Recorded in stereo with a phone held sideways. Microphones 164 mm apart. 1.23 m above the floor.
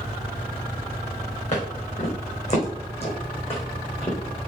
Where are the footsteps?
45° left (ahead or behind), 4.5 m; by 4.2 s 35° left (ahead or behind), 2.5 m.